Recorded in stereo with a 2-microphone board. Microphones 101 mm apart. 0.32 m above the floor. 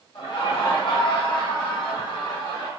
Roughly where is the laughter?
Left.